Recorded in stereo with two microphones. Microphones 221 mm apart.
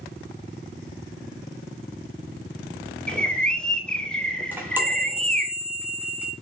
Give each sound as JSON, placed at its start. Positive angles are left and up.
{"t": 3.1, "sound": "a bird", "side_deg": 5, "distance_m": 3.0}
{"t": 4.5, "sound": "a chime", "side_deg": -10, "distance_m": 3.0}